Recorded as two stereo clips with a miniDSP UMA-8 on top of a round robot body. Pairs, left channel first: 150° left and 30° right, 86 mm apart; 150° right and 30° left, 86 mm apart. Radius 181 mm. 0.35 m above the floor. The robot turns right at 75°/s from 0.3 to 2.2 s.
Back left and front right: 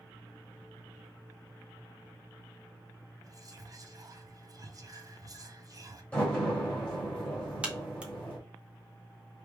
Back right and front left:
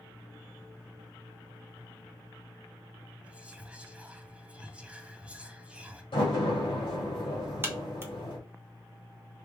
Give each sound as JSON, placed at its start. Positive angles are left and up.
{"t": 3.2, "sound": "whispering", "azimuth_deg": -40, "distance_m": 1.0}
{"t": 6.1, "sound": "a door slam", "azimuth_deg": -135, "distance_m": 2.5}
{"t": 7.6, "sound": "a crack", "azimuth_deg": 30, "distance_m": 1.3}